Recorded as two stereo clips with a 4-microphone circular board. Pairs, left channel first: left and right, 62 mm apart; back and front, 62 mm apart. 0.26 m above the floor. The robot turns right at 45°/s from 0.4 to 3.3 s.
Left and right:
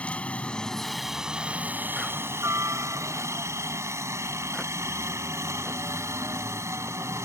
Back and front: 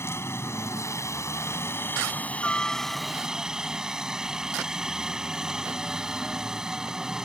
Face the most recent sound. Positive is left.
turn(degrees=-75)